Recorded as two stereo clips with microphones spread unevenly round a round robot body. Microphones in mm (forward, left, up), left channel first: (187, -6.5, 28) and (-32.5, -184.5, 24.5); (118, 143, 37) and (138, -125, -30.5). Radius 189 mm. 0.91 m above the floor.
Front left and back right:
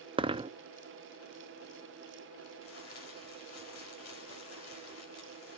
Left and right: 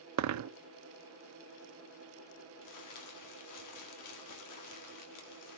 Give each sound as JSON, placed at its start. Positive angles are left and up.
{"t": 0.2, "sound": "a dropped coin", "azimuth_deg": -70, "distance_m": 0.6}
{"t": 2.6, "sound": "crumpling", "azimuth_deg": 85, "distance_m": 2.5}